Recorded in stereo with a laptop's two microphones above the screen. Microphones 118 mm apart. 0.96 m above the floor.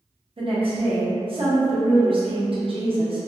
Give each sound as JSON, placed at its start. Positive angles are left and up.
{"t": 0.4, "sound": "a woman speaking", "side_deg": -50, "distance_m": 0.7}